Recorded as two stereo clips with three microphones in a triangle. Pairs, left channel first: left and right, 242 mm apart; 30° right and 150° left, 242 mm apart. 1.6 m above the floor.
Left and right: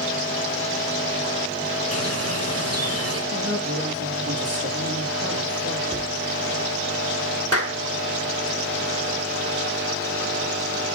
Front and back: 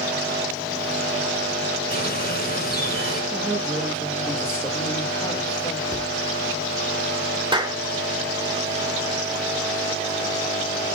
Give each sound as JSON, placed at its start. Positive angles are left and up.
{"t": 1.9, "sound": "a bird", "azimuth_deg": -80, "distance_m": 1.9}
{"t": 3.3, "sound": "a woman speaking", "azimuth_deg": -125, "distance_m": 7.0}
{"t": 5.9, "sound": "a cupboard door", "azimuth_deg": -150, "distance_m": 3.0}
{"t": 7.5, "sound": "a clap", "azimuth_deg": 80, "distance_m": 1.7}